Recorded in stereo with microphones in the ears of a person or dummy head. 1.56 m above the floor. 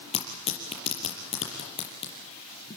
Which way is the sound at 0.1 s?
35° left (ahead or behind).